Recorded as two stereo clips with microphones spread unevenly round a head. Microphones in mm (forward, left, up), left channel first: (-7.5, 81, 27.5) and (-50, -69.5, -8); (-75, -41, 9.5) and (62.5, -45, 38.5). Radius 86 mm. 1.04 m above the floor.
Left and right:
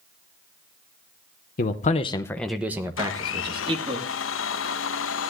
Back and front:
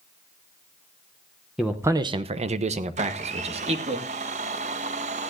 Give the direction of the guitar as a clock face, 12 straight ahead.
No guitar in this recording.